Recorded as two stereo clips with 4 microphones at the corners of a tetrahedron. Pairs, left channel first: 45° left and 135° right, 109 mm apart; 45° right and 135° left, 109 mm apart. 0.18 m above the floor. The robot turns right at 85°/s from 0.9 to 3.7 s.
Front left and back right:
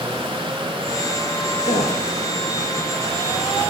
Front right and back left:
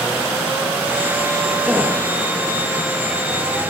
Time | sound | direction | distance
1.6 | a gasp | 40° left | 6 m